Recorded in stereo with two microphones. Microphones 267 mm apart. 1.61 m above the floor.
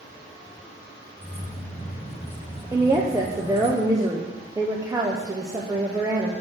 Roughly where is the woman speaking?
Centre.